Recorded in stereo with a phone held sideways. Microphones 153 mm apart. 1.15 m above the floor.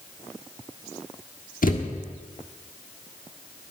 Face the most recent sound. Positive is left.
turn(degrees=65)  # may be behind; listen again after turning